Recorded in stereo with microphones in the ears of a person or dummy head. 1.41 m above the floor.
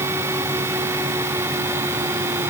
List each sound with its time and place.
Only background noise.